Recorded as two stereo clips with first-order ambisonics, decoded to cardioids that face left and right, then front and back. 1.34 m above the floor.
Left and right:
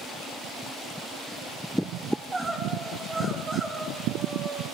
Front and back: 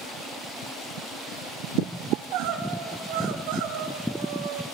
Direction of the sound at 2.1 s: 165° right.